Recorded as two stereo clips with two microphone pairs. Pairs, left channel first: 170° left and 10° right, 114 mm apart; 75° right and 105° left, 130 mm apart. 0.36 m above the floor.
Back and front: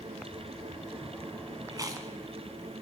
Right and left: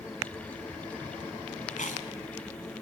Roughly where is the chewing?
Ahead right.